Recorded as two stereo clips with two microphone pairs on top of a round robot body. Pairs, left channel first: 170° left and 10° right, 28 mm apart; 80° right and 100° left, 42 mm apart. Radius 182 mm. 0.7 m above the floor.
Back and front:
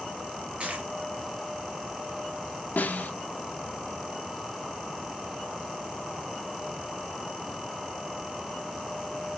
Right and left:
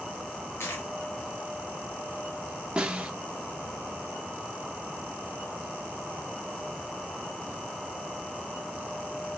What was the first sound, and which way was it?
A dropped coin, 55° right.